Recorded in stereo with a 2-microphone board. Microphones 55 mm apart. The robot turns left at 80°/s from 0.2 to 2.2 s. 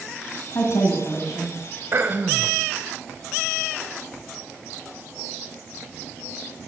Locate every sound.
0.6 s a woman speaking: 110° left, 1.9 m; by 1.5 s 35° left, 1.9 m
1.9 s throat clearing: 45° right (ahead or behind), 0.6 m; by 2.5 s 35° right (ahead or behind), 0.6 m